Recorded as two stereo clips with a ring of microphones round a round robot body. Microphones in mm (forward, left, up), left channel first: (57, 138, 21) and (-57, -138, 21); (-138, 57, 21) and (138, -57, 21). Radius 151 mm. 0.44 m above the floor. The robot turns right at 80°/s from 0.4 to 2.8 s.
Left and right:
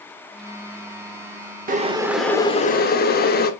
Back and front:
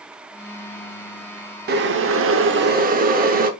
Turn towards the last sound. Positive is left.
turn(degrees=25)